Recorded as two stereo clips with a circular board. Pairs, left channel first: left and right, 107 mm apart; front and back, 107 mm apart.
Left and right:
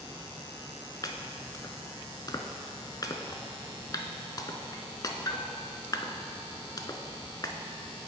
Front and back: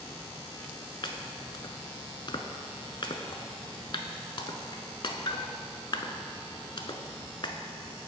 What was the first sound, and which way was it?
Chopping, 40° left.